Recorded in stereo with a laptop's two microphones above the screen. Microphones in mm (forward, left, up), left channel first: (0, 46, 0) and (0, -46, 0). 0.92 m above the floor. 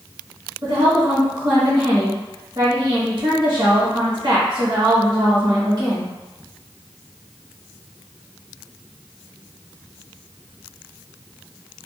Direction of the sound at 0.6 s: 50° right (ahead or behind).